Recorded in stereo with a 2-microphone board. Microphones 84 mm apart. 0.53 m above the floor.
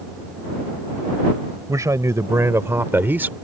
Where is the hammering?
No hammering in this recording.